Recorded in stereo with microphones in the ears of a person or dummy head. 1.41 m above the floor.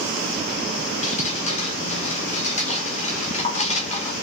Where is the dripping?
40° left (ahead or behind), 0.8 m.